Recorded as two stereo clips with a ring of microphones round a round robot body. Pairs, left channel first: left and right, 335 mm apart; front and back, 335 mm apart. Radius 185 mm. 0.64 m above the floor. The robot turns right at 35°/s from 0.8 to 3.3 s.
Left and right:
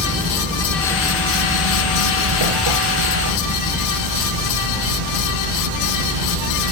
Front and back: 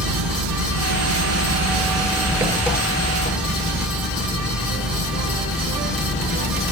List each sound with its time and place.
0.0 s an engine running: 150° right, 7.5 m; by 6.7 s 65° right, 7.5 m